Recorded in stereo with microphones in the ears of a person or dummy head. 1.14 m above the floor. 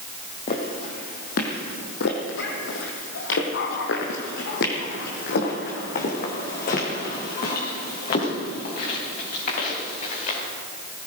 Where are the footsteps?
40° left (ahead or behind), 2.5 m.